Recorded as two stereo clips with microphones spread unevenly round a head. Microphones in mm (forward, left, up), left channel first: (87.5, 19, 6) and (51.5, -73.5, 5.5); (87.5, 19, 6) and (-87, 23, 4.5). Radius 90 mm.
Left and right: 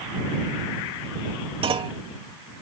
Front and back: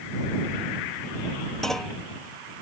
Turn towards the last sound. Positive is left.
turn(degrees=-90)